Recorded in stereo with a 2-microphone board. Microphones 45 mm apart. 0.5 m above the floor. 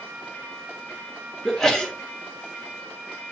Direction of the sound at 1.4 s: 10° left (ahead or behind).